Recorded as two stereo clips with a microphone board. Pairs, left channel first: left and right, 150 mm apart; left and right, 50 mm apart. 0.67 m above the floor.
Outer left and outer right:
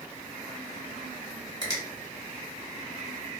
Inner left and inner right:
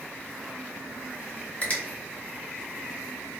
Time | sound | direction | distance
1.6 | a finger snap | 30° left (ahead or behind) | 1.4 m